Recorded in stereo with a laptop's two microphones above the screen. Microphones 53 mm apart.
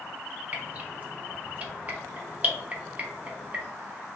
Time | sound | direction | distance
0.5 | dripping | 30° right (ahead or behind) | 0.7 m